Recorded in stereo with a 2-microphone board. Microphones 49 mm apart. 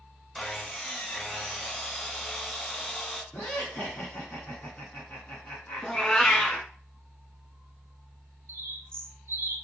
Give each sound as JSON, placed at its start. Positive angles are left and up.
{"t": 0.3, "sound": "sawing", "side_deg": 10, "distance_m": 0.6}
{"t": 3.3, "sound": "laughter", "side_deg": 35, "distance_m": 1.5}
{"t": 5.8, "sound": "a cat meowing", "side_deg": 20, "distance_m": 0.9}
{"t": 8.5, "sound": "a bird", "side_deg": -50, "distance_m": 0.5}